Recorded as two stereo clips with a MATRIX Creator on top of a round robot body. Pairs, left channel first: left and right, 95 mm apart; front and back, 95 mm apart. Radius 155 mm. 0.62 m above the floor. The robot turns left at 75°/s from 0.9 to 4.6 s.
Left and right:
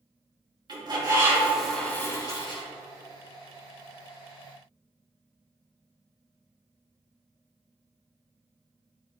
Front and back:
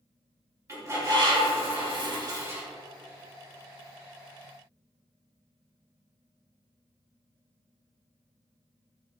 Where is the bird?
125° right, 2.5 m; by 2.6 s 105° left, 2.5 m.